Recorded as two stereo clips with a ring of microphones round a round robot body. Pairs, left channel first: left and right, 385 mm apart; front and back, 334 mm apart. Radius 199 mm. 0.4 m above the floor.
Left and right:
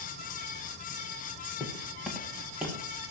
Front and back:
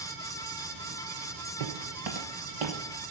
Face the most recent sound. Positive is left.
turn(degrees=180)